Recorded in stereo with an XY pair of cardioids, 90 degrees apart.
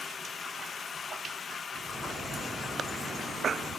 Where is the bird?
65° right, 2.5 m.